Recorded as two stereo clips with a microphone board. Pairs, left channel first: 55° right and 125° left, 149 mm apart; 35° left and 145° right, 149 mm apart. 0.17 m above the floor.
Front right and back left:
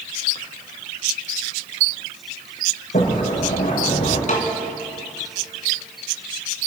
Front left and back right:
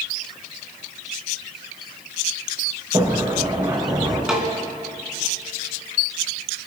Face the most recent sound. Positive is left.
turn(degrees=-60)